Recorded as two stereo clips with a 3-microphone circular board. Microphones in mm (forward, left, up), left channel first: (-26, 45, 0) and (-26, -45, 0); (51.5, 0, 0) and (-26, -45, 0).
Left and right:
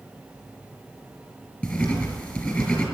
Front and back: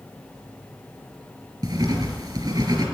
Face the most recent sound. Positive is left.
turn(degrees=160)